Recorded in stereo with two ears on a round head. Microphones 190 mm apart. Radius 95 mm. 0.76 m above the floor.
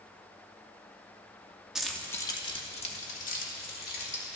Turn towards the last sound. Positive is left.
turn(degrees=50)  # may be behind; listen again after turning